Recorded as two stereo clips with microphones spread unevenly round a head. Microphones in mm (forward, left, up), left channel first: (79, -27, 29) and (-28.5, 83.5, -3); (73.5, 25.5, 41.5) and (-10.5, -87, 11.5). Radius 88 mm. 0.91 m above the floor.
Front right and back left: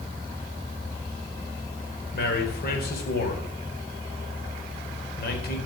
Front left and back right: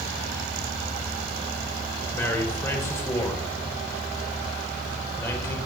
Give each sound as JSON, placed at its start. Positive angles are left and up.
{"t": 2.1, "sound": "a man speaking", "azimuth_deg": -20, "distance_m": 4.5}